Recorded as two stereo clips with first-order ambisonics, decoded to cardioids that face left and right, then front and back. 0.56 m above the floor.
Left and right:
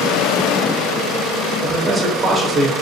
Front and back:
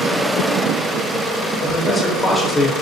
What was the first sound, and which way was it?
A man speaking, 55° right.